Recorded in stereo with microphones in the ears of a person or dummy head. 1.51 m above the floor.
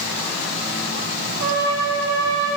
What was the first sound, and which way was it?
A trumpet, 65° right (ahead or behind).